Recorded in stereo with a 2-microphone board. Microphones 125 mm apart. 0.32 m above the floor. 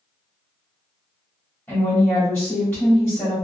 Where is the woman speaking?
15° left (ahead or behind), 1.2 m.